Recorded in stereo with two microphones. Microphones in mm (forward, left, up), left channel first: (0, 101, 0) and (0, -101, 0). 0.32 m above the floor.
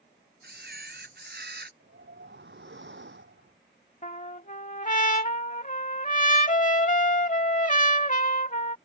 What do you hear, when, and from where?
0.4 s a camera shutter: 55° right (ahead or behind)
1.8 s a whoosh: 65° right (ahead or behind)
4.0 s a trumpet: 40° left (ahead or behind)